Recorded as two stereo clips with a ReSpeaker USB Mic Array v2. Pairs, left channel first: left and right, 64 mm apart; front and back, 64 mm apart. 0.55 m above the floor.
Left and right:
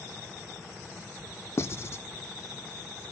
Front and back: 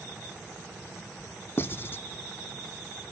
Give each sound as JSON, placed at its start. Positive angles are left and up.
{"t": 1.6, "sound": "writing", "azimuth_deg": 50, "distance_m": 0.9}